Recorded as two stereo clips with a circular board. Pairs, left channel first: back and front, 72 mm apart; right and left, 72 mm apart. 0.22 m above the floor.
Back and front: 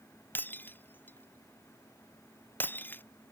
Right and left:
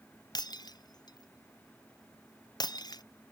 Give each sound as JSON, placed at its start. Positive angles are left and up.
{"t": 0.3, "sound": "breaking glass", "azimuth_deg": -115}